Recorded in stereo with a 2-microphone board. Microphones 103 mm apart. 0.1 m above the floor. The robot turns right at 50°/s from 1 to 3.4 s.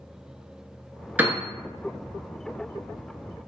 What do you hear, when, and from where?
1.2 s a piano: 15° right (ahead or behind), 0.5 m; by 1.4 s 10° right (ahead or behind), 0.5 m